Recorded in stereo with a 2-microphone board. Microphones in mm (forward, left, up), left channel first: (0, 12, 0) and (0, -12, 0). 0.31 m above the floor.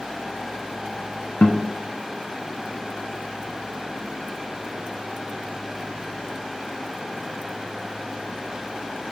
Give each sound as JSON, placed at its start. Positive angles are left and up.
{"t": 1.4, "sound": "a guitar", "side_deg": 60, "distance_m": 1.2}